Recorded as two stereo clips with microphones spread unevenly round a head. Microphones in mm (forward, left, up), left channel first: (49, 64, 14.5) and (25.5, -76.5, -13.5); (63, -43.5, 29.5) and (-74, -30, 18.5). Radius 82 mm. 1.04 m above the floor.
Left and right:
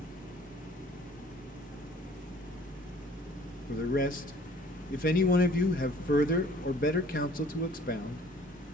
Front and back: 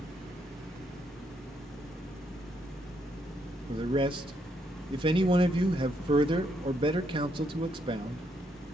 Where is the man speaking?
125° left, 1.0 m.